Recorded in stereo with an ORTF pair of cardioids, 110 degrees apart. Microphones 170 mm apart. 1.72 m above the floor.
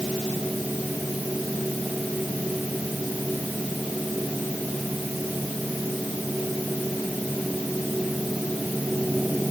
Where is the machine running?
5° right.